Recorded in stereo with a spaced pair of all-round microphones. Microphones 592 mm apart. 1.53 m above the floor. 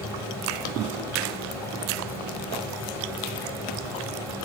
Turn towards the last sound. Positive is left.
turn(degrees=-5)  # may be behind; listen again after turning